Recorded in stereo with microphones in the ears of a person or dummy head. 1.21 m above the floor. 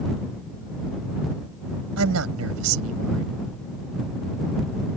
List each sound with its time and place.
2.0 s a man speaking: 90° right